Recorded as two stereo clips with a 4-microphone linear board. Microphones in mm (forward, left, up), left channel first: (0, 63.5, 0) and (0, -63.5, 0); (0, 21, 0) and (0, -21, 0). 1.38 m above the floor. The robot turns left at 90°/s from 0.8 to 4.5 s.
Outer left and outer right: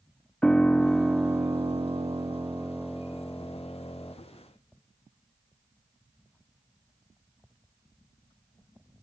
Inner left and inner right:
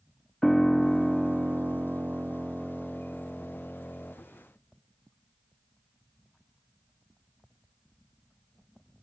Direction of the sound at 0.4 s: 5° left (ahead or behind).